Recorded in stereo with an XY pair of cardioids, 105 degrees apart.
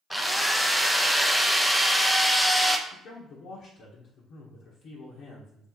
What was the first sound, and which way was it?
A drill, 5° left.